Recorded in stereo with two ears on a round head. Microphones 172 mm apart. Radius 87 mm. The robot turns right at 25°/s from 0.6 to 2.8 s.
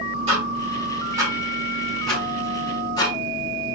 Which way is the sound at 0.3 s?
30° right (ahead or behind).